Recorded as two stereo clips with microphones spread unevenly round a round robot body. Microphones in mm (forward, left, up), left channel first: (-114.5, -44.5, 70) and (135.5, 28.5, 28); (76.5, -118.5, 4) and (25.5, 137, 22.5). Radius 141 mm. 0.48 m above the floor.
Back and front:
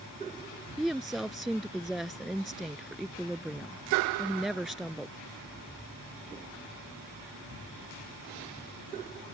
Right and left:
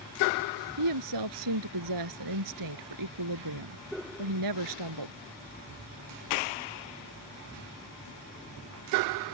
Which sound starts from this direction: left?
A woman speaking, at 0.8 s.